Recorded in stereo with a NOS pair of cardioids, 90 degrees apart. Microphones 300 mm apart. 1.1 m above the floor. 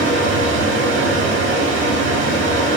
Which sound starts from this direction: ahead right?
A fan, at 0.0 s.